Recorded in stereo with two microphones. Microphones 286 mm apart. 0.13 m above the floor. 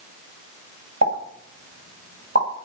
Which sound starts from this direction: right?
A pop, at 1.0 s.